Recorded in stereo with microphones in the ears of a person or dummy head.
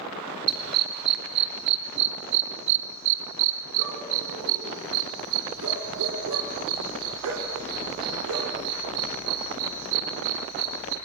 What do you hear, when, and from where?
0.5 s a dog barking: 55° right (ahead or behind), 4 m; by 10.9 s 70° right (ahead or behind), 7 m